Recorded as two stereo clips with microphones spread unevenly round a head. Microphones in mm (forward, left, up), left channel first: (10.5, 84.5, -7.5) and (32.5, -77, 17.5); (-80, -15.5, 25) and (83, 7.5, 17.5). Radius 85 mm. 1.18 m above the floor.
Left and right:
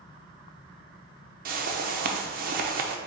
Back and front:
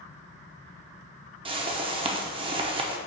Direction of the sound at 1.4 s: 45° right.